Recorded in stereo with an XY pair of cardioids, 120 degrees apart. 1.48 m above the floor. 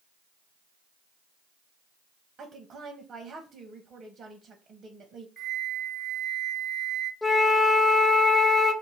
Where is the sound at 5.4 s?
25° right, 0.6 m.